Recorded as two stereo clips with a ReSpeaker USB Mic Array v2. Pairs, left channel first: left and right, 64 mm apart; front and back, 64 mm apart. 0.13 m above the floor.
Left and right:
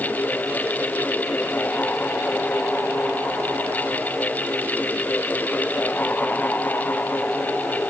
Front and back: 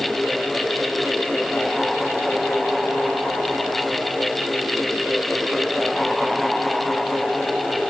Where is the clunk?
No clunk in this recording.